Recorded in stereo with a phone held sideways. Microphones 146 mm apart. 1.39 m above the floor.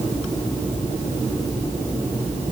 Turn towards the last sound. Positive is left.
No sound to turn to.